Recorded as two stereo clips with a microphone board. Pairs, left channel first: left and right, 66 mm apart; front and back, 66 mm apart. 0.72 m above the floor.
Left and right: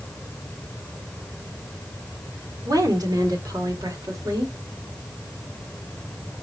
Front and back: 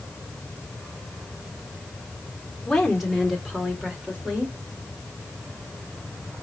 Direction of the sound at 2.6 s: 85° right.